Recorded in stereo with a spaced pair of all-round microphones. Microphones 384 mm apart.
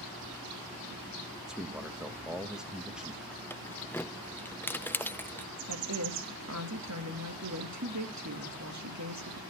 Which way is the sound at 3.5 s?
5° left (ahead or behind).